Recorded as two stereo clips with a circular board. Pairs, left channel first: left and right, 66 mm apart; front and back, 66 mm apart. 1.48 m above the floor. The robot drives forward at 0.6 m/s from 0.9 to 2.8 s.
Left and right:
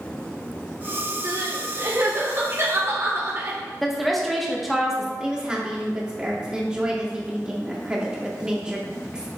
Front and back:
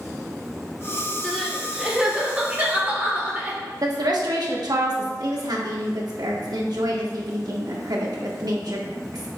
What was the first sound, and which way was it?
Crying, 80° right.